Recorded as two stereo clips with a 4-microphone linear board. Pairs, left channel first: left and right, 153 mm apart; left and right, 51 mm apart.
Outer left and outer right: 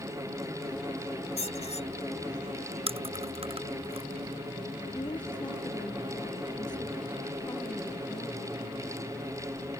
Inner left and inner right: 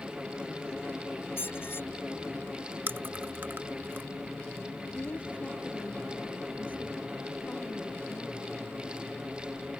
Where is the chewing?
40° right (ahead or behind).